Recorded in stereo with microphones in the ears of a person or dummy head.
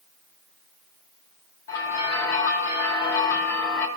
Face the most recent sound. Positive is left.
turn(degrees=15)  # may be behind; listen again after turning